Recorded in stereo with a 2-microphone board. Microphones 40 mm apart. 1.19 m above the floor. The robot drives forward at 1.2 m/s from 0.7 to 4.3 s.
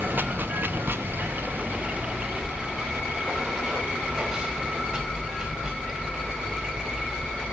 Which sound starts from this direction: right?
Running water, at 0.0 s.